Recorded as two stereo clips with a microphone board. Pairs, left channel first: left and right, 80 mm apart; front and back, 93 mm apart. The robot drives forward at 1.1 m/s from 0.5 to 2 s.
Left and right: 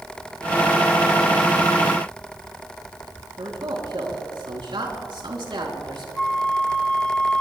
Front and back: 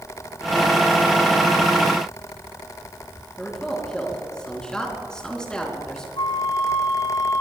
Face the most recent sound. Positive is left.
turn(degrees=10)